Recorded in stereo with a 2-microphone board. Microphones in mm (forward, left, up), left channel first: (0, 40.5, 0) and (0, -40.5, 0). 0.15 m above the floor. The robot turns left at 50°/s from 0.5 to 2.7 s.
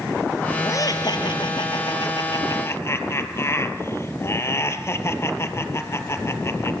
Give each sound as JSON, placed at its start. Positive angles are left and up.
{"t": 0.6, "sound": "laughter", "azimuth_deg": 140, "distance_m": 3.5}